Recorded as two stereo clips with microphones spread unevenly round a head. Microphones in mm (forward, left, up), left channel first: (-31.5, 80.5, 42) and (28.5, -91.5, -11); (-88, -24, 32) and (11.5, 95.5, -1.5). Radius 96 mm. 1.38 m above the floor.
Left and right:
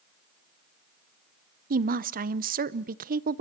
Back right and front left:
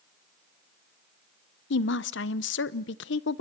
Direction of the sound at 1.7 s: 115° right.